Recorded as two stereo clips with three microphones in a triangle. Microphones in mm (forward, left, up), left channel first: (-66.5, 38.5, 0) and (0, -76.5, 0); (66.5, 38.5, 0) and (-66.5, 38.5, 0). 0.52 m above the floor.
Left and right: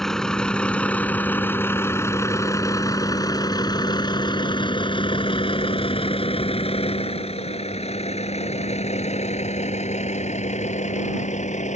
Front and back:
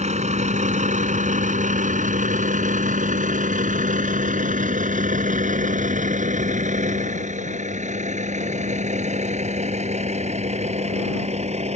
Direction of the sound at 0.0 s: 155° right.